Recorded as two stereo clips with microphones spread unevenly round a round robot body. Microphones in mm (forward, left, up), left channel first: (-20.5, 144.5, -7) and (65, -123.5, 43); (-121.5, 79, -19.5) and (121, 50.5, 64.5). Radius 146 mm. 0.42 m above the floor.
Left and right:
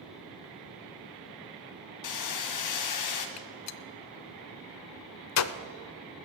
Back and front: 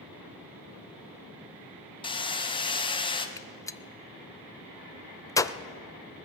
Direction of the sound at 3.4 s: 105° left.